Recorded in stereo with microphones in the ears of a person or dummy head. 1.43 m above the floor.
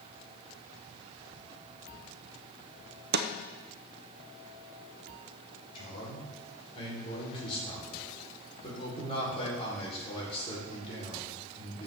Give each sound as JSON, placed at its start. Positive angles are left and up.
{"t": 3.1, "sound": "a snare drum", "side_deg": -55, "distance_m": 0.7}
{"t": 5.8, "sound": "a man speaking", "side_deg": 35, "distance_m": 4.0}